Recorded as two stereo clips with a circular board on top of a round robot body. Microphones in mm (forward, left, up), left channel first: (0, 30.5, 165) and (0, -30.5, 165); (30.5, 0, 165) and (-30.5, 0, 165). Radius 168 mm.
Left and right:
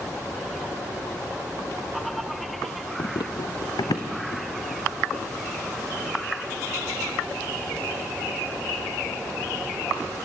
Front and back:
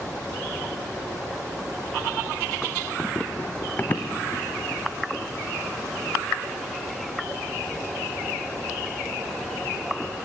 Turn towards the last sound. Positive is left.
turn(degrees=65)